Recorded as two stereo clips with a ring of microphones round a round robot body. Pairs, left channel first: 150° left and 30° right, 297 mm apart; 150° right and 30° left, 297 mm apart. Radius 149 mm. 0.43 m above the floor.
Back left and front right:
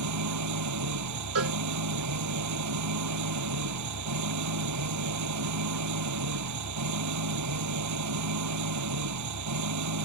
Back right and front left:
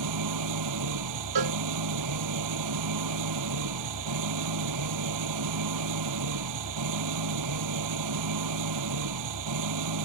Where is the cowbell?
15° left.